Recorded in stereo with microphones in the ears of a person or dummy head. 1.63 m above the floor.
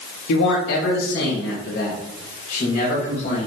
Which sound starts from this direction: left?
A man speaking, at 0.3 s.